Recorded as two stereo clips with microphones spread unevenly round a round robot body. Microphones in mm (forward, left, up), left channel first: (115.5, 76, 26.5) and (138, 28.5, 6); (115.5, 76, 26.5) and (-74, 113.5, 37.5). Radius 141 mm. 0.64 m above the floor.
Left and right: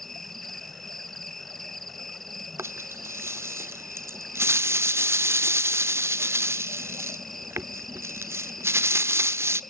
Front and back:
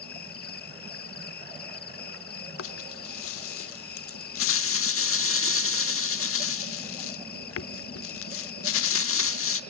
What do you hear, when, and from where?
0.0 s an insect: 30° left, 0.8 m
2.6 s a rattle: 30° right, 0.9 m